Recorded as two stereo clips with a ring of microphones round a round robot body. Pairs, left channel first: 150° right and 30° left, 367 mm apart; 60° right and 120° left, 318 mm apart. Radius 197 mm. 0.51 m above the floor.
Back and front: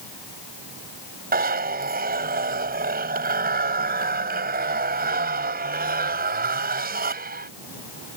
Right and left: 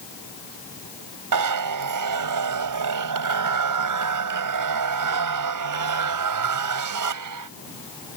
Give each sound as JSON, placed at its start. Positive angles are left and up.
{"t": 1.3, "sound": "a zipper", "azimuth_deg": 95}